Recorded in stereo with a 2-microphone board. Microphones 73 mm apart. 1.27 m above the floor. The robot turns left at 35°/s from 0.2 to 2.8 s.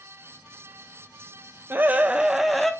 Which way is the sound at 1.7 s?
150° right.